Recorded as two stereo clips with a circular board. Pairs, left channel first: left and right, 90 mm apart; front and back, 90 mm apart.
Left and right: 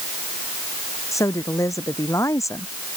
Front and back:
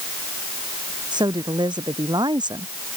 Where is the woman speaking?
145° left.